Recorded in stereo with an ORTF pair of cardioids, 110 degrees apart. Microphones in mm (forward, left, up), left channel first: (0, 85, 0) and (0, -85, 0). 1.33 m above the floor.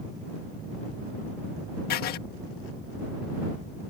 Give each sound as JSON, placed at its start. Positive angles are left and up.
{"t": 1.9, "sound": "writing", "azimuth_deg": 70}